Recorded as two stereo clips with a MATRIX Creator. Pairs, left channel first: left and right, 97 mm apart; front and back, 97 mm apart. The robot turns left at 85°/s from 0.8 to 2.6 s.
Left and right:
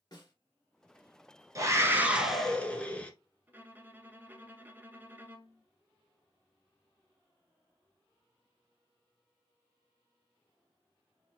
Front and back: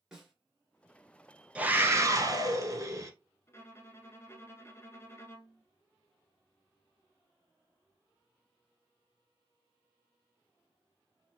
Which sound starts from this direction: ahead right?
A violin, at 3.5 s.